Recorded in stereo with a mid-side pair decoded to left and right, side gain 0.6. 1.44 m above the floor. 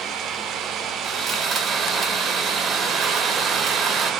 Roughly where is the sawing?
Ahead right.